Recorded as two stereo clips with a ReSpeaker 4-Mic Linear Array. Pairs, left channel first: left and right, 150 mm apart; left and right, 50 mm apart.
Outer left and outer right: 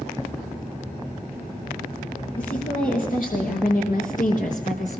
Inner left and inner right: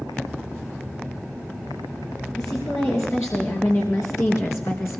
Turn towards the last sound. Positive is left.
turn(degrees=50)  # may be behind; listen again after turning